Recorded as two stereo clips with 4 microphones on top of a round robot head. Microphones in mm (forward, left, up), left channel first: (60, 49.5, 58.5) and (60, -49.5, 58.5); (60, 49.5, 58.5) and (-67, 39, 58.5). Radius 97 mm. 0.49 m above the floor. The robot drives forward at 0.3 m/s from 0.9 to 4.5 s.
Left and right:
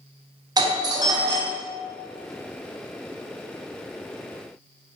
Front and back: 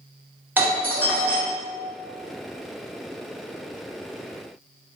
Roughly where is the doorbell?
Right.